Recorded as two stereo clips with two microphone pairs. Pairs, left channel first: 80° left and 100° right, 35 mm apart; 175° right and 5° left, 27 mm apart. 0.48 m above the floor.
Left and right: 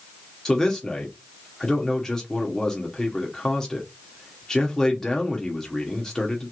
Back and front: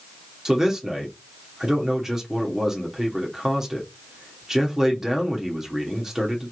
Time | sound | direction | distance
0.5 | a man speaking | 40° left | 1.0 m